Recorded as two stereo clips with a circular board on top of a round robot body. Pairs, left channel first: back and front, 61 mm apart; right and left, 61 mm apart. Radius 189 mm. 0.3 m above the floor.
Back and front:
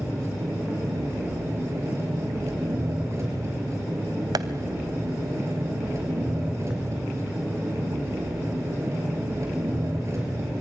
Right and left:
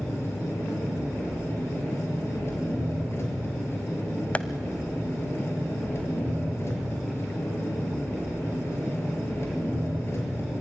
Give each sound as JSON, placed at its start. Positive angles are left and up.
{"t": 0.0, "sound": "an engine running", "azimuth_deg": -45, "distance_m": 5.5}
{"t": 4.3, "sound": "tapping", "azimuth_deg": -20, "distance_m": 0.6}